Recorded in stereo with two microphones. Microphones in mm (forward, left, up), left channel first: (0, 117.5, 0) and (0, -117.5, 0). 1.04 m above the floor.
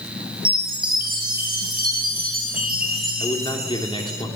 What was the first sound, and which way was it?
A chime, 40° right (ahead or behind).